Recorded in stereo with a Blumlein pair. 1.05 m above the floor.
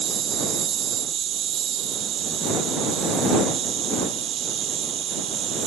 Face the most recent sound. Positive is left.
turn(degrees=-30)